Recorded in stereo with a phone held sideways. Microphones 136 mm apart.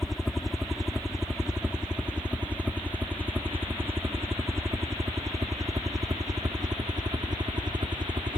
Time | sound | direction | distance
0.0 | a helicopter | centre (ahead or behind) | ?